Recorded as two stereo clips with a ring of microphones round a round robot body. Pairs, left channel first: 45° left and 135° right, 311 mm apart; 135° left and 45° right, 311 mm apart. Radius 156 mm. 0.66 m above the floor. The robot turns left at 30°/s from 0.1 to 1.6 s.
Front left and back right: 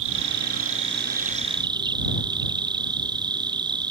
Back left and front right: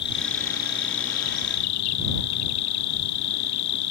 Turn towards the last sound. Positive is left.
turn(degrees=150)